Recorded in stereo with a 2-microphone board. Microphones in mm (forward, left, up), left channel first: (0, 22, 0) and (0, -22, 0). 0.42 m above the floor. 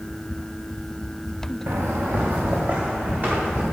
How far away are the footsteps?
About 2 m.